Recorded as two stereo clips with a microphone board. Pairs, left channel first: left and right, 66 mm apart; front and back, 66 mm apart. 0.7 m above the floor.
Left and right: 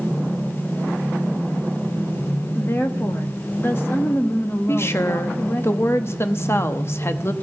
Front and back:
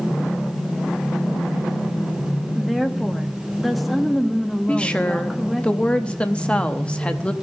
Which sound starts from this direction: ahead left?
A woman speaking, at 4.7 s.